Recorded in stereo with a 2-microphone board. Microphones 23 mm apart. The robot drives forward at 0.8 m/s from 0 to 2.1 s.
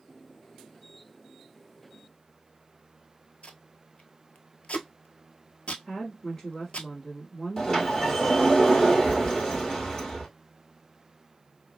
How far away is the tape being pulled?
About 0.6 m.